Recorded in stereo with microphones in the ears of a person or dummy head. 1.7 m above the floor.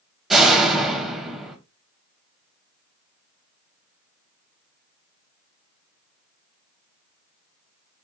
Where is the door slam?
Centre (ahead or behind), 0.8 m.